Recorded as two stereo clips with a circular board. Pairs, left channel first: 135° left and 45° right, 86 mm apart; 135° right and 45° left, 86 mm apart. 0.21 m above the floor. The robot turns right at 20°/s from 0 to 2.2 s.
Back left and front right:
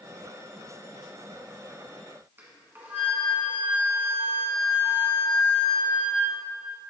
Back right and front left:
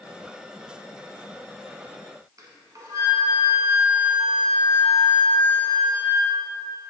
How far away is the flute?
About 1.3 m.